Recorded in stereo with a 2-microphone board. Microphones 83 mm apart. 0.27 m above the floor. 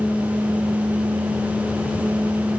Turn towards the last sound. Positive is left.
No sound to turn to.